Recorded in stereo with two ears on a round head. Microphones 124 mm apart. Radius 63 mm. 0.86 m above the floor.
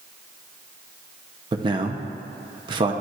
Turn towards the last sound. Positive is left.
turn(degrees=-30)  # may be behind; listen again after turning